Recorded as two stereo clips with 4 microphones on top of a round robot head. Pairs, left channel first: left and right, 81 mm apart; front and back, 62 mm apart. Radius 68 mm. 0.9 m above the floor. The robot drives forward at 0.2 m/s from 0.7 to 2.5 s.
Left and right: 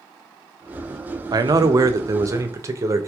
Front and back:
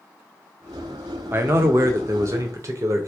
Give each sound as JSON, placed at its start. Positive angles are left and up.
{"t": 1.3, "sound": "a man speaking", "azimuth_deg": -125, "distance_m": 0.6}